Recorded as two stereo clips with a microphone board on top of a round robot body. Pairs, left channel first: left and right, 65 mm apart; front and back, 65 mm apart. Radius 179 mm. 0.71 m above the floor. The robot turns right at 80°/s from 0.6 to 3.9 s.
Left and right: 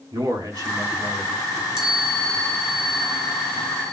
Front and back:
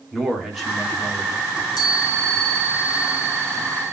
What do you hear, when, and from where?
0.1 s a man speaking: 90° right, 2.5 m; by 1.4 s 30° right, 2.5 m
1.5 s a chime: 35° right, 4 m; by 3.9 s 160° left, 4 m